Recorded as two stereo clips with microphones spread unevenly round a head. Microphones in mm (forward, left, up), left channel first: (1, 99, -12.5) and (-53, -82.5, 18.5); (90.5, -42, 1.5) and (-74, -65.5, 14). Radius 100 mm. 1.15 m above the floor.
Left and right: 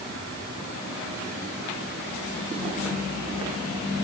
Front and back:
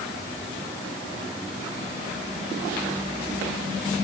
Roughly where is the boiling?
No boiling in this recording.